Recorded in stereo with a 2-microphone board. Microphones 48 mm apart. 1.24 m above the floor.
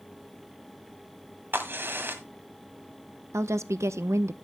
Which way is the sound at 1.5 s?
50° right (ahead or behind).